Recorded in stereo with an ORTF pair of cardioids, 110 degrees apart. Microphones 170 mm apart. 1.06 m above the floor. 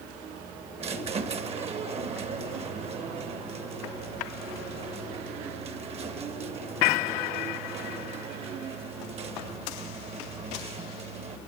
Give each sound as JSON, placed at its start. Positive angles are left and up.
{"t": 0.8, "sound": "a squeak", "azimuth_deg": -40, "distance_m": 0.9}